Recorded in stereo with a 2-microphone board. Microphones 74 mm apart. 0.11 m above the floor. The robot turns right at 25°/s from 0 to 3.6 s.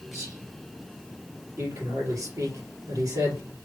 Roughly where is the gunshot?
I don't hear a gunshot.